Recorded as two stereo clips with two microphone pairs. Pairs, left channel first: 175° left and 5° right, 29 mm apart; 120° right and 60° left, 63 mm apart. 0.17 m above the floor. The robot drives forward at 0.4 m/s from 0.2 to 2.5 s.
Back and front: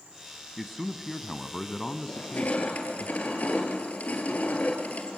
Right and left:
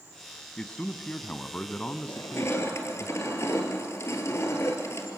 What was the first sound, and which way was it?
A man speaking, 80° right.